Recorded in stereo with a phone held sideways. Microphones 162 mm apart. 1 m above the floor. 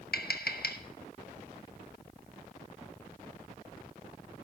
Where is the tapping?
75° left (ahead or behind), 1.2 m.